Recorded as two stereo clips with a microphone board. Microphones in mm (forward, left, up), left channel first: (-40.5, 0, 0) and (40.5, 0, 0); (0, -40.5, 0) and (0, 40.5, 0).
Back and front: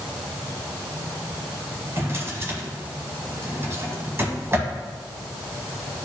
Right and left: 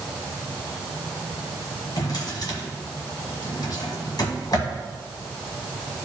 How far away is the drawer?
About 1.5 m.